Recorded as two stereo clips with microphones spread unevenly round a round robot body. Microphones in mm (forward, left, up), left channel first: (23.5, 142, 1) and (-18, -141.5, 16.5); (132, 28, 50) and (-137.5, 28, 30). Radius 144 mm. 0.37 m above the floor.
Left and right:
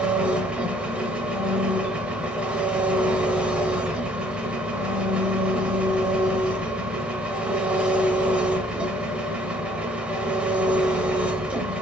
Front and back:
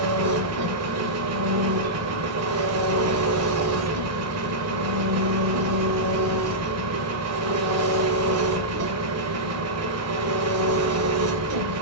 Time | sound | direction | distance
0.0 | an engine running | 175° left | 0.7 m